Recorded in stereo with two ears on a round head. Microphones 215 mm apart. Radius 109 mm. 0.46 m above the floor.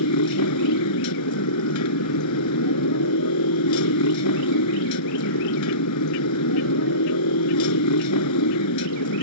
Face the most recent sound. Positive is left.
turn(degrees=80)